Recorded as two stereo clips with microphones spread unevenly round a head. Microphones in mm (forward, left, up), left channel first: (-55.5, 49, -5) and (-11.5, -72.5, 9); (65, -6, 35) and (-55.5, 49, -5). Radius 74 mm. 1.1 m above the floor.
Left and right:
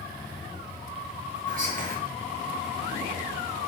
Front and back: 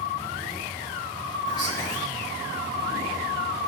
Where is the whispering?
90° right, 1.0 m.